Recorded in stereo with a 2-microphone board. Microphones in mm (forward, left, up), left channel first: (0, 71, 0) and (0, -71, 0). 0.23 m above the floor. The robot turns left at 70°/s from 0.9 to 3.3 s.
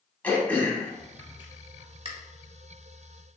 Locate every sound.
0.2 s throat clearing: 10° left (ahead or behind), 0.8 m; by 2.1 s 40° right (ahead or behind), 0.8 m